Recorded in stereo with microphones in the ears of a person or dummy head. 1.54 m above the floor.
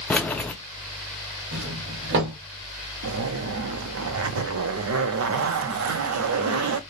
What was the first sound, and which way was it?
Keys jangling, 5° left (ahead or behind).